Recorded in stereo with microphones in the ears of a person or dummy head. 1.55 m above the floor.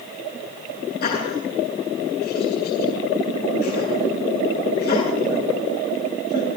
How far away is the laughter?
About 8 m.